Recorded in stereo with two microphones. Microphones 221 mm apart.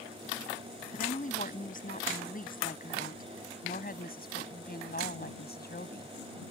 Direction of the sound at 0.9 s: 35° left (ahead or behind).